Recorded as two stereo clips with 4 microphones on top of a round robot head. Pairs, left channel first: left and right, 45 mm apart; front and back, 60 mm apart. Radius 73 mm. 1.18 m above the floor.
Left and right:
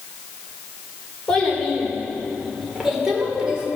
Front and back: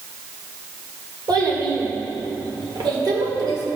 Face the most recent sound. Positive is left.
turn(degrees=-155)